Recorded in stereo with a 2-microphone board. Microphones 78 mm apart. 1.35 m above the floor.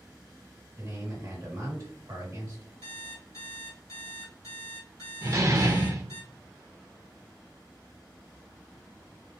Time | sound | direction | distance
0.8 | a man speaking | 40° right (ahead or behind) | 1.4 m
2.8 | an alarm clock | 50° left (ahead or behind) | 1.8 m
5.2 | a door slam | 40° right (ahead or behind) | 0.5 m